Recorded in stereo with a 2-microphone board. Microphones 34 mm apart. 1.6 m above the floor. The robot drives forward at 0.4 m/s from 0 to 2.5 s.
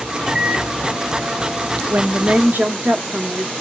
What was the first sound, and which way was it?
A microwave, 30° right (ahead or behind).